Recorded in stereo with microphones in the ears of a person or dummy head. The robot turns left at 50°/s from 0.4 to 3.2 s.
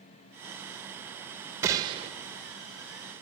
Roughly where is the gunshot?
Centre.